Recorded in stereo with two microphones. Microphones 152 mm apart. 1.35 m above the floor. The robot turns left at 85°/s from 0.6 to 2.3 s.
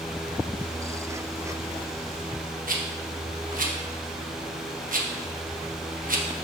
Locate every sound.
2.7 s a rattle: 65° right (ahead or behind), 1.2 m